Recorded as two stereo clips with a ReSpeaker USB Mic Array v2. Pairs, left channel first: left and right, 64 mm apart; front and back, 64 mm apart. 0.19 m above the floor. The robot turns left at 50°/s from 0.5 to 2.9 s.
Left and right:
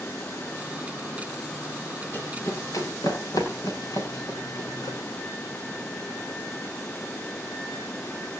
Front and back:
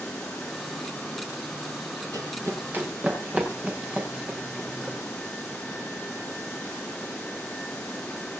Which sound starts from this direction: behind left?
Running footsteps, at 2.1 s.